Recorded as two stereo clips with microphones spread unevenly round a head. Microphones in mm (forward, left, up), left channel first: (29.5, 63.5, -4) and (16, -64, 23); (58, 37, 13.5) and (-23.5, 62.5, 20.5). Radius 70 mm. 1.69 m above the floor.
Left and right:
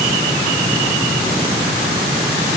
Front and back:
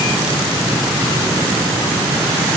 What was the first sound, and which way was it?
Only background noise.